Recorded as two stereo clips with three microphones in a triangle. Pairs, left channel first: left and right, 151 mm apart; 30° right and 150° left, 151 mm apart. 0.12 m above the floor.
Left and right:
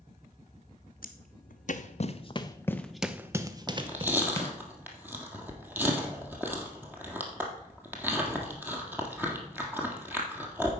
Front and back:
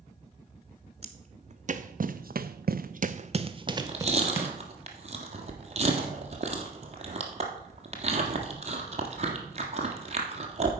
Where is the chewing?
165° right, 1.5 m.